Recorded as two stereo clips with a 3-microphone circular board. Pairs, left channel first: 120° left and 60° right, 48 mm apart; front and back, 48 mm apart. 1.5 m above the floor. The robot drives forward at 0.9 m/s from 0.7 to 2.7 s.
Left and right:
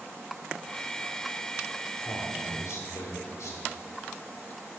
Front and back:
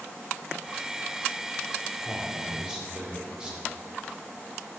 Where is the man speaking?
95° left, 4 m; by 3.6 s 105° left, 4 m.